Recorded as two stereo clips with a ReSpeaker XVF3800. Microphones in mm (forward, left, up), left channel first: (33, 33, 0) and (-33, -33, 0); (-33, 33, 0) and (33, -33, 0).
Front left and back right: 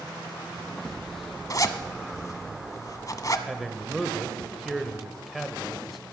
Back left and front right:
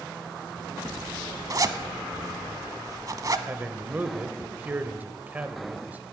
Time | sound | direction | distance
1.5 | a zipper | straight ahead | 0.8 m
3.5 | a man speaking | 45° right | 0.9 m